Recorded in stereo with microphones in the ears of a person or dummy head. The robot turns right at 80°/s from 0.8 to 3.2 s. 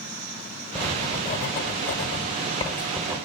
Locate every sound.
0.8 s writing: 10° left (ahead or behind), 1.8 m; by 3.2 s 15° right (ahead or behind), 1.8 m